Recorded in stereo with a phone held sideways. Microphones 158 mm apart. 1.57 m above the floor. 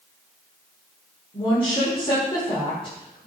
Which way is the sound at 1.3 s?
35° left (ahead or behind).